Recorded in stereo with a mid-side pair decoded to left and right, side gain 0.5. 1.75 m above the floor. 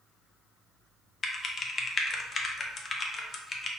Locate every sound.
1.2 s typing on a keyboard: 40° left, 0.6 m